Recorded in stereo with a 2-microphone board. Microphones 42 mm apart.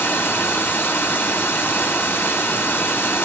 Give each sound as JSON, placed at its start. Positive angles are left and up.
{"t": 0.0, "sound": "running water", "side_deg": 70, "distance_m": 1.7}